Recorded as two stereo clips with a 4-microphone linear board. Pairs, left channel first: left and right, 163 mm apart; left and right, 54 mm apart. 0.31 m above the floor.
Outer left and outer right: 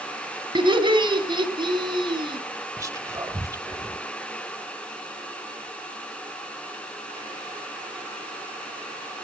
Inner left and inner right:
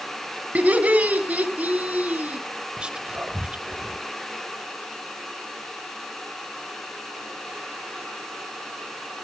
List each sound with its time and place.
0.6 s laughter: 30° right (ahead or behind), 3 m
2.8 s whispering: 20° right (ahead or behind), 1.1 m